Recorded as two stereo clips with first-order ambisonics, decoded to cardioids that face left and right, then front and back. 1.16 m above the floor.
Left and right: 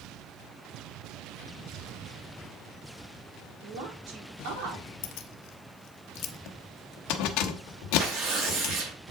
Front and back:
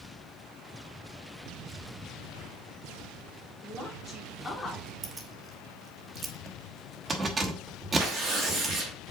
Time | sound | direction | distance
3.6 | a woman speaking | 85° right | 3.5 m
5.0 | keys jangling | 110° left | 1.1 m
8.0 | tearing paper | 135° right | 4.5 m